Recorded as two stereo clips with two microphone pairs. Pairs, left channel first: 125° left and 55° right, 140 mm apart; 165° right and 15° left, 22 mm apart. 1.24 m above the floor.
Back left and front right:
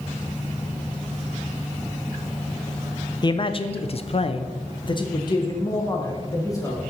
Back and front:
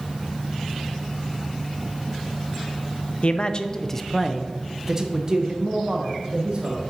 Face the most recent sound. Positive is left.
turn(degrees=60)